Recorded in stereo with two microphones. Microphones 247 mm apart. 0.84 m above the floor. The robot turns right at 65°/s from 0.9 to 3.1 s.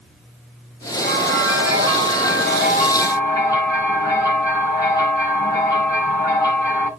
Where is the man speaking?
No man speaking in this recording.